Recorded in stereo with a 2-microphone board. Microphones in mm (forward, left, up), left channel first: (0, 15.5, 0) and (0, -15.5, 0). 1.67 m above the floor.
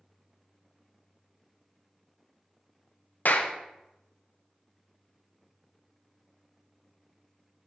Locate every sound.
3.2 s a clap: 60° left (ahead or behind), 0.5 m